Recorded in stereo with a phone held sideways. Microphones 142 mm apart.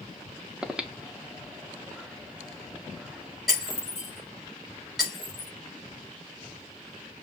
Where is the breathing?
5° right (ahead or behind), 0.7 m.